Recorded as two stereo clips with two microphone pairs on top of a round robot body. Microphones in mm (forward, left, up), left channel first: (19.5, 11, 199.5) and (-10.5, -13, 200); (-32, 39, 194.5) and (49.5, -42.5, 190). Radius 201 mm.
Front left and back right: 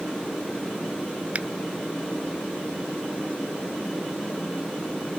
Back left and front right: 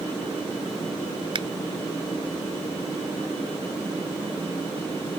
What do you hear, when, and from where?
1.4 s a finger snap: 90° right